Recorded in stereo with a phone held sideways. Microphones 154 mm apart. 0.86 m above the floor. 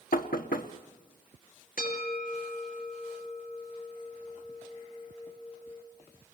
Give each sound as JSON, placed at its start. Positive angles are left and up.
{"t": 0.1, "sound": "knocking", "side_deg": 75, "distance_m": 1.1}
{"t": 1.8, "sound": "a bell", "side_deg": 75, "distance_m": 6.5}